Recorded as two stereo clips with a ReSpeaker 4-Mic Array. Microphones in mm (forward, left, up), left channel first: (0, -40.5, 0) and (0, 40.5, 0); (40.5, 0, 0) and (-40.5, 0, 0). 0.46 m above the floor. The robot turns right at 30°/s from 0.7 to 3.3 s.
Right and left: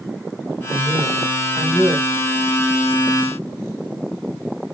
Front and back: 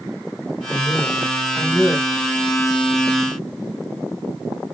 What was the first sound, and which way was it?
A man speaking, 130° right.